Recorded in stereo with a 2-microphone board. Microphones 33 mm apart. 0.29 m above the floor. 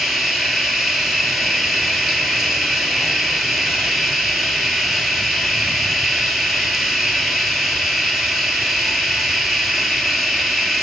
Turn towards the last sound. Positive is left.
turn(degrees=-10)  # may be behind; listen again after turning